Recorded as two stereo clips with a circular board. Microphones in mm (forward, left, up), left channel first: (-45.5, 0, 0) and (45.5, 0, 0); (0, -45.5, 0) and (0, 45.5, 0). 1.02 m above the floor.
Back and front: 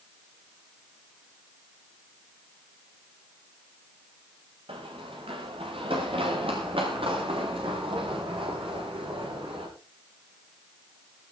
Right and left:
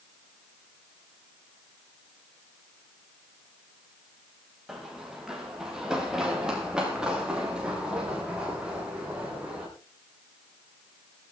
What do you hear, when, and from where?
4.7 s running footsteps: 5° left, 6 m; by 9.7 s 10° left, 12 m